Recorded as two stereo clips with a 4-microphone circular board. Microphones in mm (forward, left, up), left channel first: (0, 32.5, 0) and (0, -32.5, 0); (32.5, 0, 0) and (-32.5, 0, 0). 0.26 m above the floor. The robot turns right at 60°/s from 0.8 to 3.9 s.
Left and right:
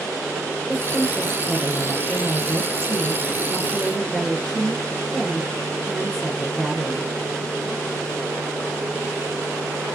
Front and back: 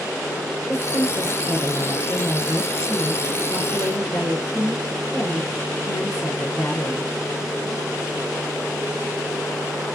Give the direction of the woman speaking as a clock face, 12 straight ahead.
6 o'clock.